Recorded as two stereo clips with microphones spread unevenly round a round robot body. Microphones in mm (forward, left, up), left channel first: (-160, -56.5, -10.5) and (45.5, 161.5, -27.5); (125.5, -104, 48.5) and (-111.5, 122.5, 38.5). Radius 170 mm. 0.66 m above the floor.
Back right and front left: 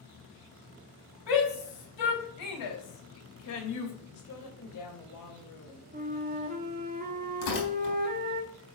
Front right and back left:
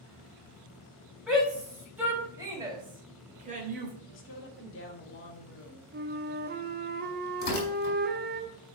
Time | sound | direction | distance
1.3 | a shout | 135° right | 4.5 m
4.1 | a woman speaking | 95° right | 2 m
5.9 | a flute | 90° left | 1.1 m
7.4 | tearing paper | 105° right | 4.5 m